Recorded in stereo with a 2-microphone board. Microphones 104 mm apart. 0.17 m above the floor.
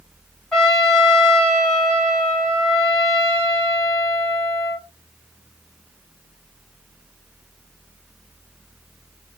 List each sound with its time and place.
0.5 s a trumpet: 5° left (ahead or behind), 1.5 m